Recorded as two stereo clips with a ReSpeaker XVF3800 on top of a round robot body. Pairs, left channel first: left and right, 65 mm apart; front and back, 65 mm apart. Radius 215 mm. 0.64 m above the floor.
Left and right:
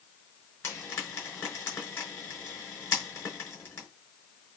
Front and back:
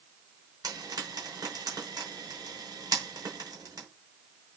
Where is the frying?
145° left, 5.5 m.